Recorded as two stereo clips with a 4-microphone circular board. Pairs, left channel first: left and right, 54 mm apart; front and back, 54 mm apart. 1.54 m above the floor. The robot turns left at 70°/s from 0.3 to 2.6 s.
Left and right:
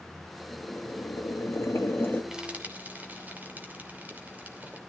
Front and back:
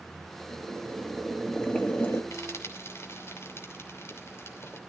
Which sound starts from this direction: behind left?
Boiling, at 0.5 s.